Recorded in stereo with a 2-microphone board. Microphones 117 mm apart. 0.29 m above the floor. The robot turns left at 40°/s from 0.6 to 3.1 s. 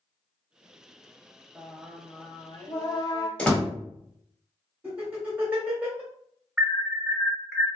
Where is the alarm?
5° right (ahead or behind), 0.7 m.